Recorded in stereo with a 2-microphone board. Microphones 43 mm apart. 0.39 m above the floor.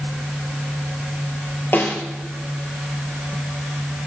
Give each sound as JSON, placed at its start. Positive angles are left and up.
{"t": 1.7, "sound": "a snare drum", "side_deg": 55, "distance_m": 3.5}